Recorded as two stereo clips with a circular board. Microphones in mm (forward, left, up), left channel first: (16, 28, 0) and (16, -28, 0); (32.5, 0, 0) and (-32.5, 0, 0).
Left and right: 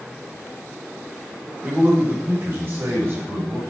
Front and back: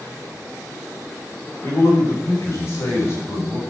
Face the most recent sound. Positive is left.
turn(degrees=-50)